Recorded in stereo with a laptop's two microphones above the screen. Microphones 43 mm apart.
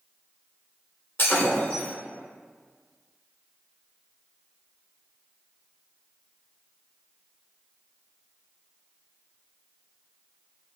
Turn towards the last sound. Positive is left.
turn(degrees=60)  # may be behind; listen again after turning